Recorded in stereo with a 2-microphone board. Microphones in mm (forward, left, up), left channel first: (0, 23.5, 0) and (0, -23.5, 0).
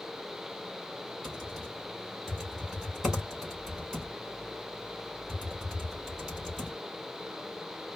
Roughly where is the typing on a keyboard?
Centre.